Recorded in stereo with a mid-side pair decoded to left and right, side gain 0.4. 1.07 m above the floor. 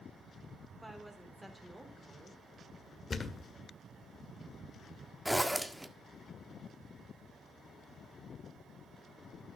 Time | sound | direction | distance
0.8 | a woman speaking | 10° right | 4 m
3.1 | a thud | 35° left | 1.6 m
5.2 | a zipper | 5° right | 1.5 m